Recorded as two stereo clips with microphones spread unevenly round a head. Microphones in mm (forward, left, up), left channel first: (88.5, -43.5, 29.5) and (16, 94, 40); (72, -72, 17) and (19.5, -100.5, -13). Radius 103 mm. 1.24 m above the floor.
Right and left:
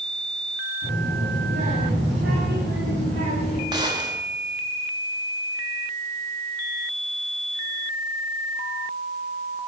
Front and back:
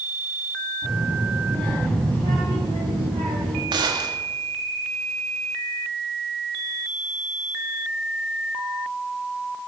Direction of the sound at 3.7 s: 175° right.